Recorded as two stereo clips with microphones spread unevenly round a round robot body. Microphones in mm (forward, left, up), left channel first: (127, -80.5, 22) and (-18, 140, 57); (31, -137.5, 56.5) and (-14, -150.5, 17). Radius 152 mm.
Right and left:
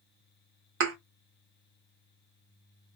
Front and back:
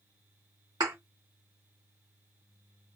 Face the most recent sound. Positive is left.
turn(degrees=150)